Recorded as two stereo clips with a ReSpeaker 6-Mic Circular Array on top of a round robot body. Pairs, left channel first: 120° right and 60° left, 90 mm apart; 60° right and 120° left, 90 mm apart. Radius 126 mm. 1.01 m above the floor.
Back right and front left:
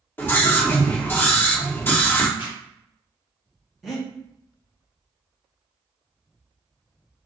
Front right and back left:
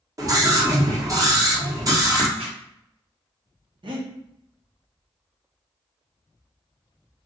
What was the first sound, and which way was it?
A scream, 175° left.